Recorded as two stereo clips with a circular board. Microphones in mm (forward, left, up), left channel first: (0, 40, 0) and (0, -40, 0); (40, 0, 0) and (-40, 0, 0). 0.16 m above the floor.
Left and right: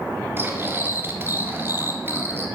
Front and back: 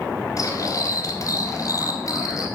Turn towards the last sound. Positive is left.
turn(degrees=-35)